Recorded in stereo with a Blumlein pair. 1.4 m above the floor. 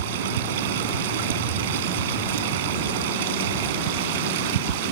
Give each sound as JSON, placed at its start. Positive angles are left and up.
{"t": 0.0, "sound": "running water", "azimuth_deg": -55}